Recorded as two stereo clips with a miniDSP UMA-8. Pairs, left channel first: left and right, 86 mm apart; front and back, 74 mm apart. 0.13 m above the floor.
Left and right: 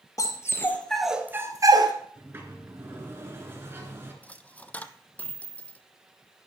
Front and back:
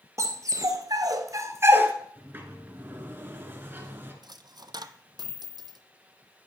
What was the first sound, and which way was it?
A dog barking, 135° left.